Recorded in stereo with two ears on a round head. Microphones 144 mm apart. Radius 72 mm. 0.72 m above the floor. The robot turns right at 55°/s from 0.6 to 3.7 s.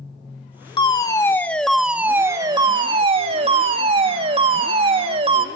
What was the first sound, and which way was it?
A fire alarm, 125° left.